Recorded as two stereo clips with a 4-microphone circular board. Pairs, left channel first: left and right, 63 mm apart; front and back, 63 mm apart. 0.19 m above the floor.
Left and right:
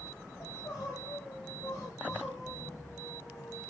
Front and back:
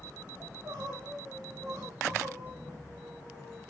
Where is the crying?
130° left, 9.5 m.